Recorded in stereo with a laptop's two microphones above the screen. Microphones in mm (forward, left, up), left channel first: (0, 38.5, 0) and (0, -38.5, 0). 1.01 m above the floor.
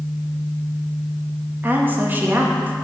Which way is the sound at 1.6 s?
25° right (ahead or behind).